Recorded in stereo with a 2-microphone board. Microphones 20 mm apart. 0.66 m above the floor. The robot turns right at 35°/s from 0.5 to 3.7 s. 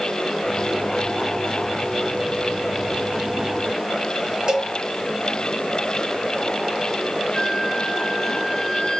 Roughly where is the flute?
Left.